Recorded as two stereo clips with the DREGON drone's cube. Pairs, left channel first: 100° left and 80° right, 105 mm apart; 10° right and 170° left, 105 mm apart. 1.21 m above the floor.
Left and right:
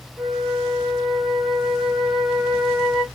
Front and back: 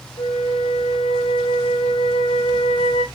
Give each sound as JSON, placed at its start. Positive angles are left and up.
{"t": 0.2, "sound": "a flute", "azimuth_deg": 10, "distance_m": 1.5}